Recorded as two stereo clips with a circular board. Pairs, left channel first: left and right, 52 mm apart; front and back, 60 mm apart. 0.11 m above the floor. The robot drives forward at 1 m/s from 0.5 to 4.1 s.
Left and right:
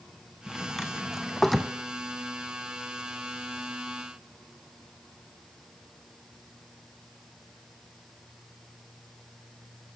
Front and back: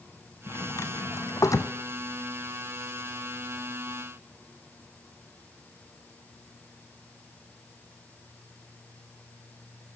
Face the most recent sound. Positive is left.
turn(degrees=180)